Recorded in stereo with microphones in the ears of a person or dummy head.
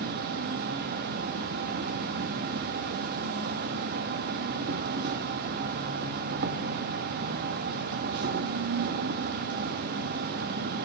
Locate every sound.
0.0 s an insect: 55° right (ahead or behind), 1.0 m